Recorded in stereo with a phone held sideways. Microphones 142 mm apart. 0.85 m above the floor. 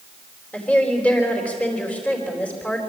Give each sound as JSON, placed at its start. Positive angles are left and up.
{"t": 0.5, "sound": "a woman speaking", "side_deg": 10, "distance_m": 4.0}